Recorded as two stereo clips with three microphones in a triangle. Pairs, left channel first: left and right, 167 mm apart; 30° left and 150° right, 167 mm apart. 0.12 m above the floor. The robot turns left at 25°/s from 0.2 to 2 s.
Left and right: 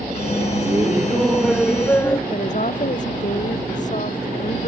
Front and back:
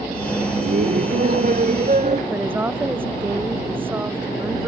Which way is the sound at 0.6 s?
160° right.